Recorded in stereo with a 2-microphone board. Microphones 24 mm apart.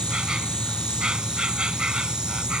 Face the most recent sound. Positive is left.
turn(degrees=-30)  # may be behind; listen again after turning